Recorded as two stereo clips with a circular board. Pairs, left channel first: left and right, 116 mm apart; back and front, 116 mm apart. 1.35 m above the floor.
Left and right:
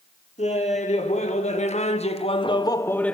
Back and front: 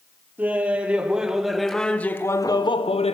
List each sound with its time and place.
0.4 s laughter: 75° left, 2.5 m; by 3.1 s 170° left, 0.9 m